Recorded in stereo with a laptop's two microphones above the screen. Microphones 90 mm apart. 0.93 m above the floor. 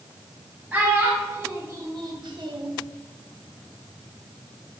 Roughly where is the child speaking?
Centre.